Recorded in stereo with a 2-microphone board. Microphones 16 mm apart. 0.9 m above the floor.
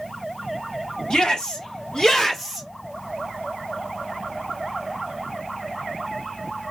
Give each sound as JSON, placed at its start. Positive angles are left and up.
{"t": 1.1, "sound": "a shout", "side_deg": 65, "distance_m": 2.0}